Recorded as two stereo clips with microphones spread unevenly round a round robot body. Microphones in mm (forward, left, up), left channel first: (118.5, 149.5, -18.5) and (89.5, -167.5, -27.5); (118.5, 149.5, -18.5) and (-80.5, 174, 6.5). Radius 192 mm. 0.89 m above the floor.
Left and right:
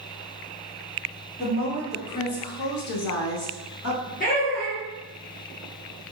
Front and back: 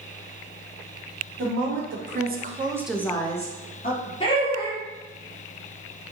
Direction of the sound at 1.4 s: 160° left.